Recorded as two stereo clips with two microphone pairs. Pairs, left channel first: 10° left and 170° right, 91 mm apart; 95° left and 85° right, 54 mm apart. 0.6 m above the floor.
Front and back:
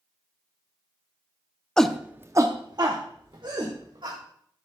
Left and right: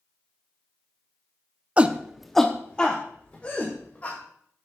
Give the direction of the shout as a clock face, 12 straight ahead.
2 o'clock.